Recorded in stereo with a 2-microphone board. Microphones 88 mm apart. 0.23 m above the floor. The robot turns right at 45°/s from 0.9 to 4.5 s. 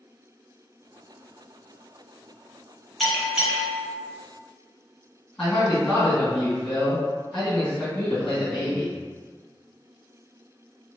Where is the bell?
Straight behind, 0.8 m; by 3.9 s 140° right, 0.8 m.